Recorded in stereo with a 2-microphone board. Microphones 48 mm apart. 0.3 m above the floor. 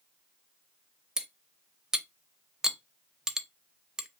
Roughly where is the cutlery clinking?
Centre.